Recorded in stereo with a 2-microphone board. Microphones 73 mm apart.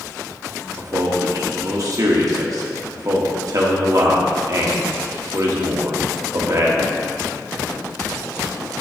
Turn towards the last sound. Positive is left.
turn(degrees=-55)  # may be behind; listen again after turning